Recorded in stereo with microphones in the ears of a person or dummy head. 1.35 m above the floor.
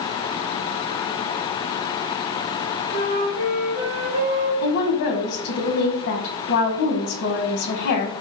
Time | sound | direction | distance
2.9 | a flute | 40° right (ahead or behind) | 1.3 m
4.6 | a woman speaking | 75° left (ahead or behind) | 0.7 m